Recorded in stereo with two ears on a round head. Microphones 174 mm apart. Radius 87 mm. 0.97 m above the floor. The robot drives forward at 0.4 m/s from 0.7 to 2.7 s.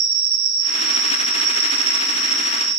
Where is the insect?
75° right (ahead or behind), 0.8 m; by 2.8 s 40° right (ahead or behind), 1.2 m.